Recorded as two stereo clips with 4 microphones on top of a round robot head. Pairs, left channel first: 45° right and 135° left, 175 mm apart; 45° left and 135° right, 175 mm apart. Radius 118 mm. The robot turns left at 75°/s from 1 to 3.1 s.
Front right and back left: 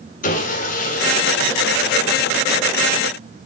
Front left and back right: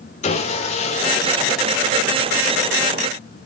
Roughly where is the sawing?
Ahead.